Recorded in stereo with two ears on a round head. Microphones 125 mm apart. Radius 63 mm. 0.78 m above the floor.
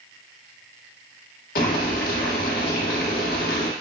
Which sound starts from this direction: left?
Boiling, at 1.6 s.